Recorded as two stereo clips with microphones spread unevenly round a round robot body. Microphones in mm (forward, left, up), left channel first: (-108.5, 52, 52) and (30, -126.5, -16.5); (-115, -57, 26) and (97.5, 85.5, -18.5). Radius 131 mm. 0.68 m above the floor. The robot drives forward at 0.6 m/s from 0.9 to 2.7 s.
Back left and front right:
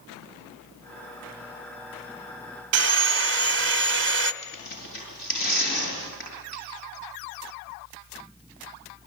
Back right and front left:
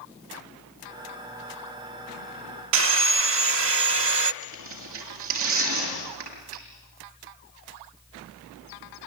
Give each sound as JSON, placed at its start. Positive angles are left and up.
{"t": 2.7, "sound": "sawing", "azimuth_deg": -10, "distance_m": 0.7}
{"t": 4.4, "sound": "tearing paper", "azimuth_deg": 75, "distance_m": 7.0}